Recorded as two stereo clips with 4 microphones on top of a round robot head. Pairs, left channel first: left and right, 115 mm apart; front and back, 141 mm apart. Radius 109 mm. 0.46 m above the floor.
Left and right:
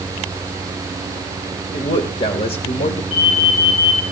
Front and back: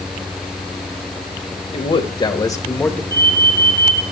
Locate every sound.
1.7 s a man speaking: 40° left, 2 m; by 3.0 s 80° left, 1.7 m
3.1 s an alarm: 115° left, 4 m